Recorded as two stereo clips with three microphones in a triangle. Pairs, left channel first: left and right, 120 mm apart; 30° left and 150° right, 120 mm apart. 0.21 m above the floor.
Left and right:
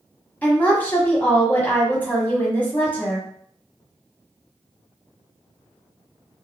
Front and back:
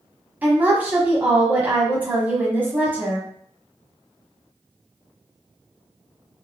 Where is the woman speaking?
150° left, 1.1 m.